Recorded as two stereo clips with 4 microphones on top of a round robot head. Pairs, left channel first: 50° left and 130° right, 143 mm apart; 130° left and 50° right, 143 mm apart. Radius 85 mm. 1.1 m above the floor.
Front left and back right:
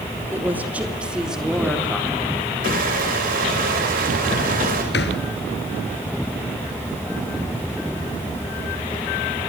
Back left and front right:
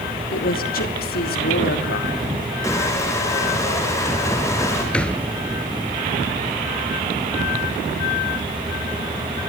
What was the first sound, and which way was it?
A woman speaking, 150° left.